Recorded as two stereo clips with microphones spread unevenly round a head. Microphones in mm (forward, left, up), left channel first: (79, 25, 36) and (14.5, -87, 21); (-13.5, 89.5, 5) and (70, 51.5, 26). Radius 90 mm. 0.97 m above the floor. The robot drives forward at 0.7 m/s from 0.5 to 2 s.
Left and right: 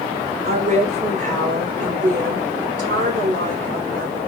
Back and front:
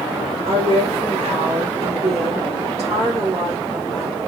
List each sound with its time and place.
0.5 s a woman speaking: 85° right, 3 m; by 4.2 s 100° right, 3 m